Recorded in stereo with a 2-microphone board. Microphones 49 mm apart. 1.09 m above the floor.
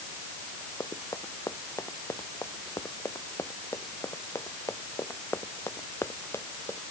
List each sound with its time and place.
0.8 s running footsteps: 85° left; by 6.8 s 55° left (ahead or behind)